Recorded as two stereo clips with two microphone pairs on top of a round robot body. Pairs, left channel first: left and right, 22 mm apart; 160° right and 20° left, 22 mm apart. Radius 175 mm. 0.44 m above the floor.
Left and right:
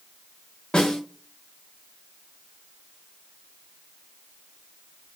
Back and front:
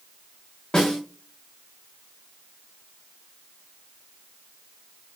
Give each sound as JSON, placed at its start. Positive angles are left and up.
{"t": 0.7, "sound": "a snare drum", "azimuth_deg": 140, "distance_m": 0.5}